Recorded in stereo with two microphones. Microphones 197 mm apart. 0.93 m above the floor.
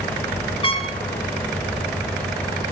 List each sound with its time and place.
0.6 s a trumpet: 25° left (ahead or behind), 1.2 m